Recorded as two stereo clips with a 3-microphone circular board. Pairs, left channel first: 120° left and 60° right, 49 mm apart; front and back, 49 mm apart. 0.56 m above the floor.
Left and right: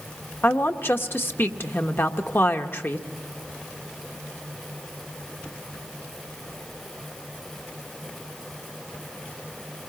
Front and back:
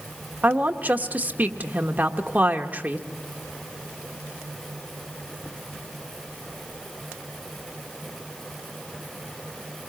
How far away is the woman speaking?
About 1.2 m.